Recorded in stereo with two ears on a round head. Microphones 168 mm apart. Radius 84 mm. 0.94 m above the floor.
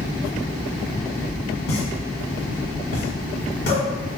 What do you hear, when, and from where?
1.7 s a pop: 50° left (ahead or behind), 1.4 m